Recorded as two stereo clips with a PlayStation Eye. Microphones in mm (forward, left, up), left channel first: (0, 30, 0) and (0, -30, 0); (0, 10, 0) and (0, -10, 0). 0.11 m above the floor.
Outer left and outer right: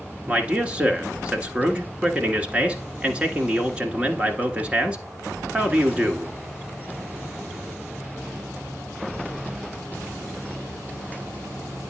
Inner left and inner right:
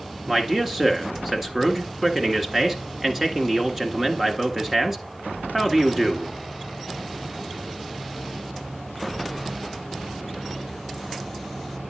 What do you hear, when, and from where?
0.3 s a man speaking: 20° right (ahead or behind), 1.3 m